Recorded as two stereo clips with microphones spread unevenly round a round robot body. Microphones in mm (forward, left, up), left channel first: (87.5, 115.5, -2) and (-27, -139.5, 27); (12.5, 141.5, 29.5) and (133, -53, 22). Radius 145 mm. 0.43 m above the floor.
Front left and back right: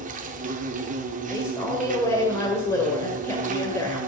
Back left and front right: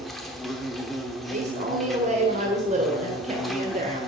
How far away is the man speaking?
About 1.7 m.